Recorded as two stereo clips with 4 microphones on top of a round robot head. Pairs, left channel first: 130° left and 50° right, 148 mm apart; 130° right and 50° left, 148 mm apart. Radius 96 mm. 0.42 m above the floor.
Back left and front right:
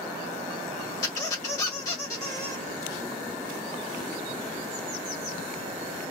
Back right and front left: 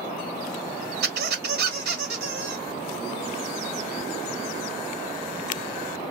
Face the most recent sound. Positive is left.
turn(degrees=65)